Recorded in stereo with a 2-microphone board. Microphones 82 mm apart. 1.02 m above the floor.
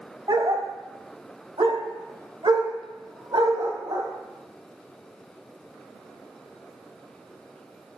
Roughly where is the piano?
I don't hear a piano.